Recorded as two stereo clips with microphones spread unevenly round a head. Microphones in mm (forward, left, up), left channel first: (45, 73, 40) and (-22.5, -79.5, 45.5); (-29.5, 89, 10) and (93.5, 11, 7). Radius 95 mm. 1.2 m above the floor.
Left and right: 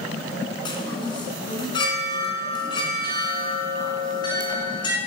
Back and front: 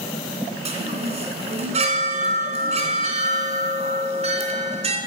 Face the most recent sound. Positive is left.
turn(degrees=5)